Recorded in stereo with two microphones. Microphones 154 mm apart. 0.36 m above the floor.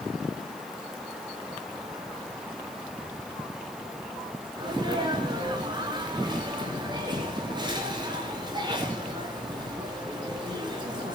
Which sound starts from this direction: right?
A sneeze, at 4.6 s.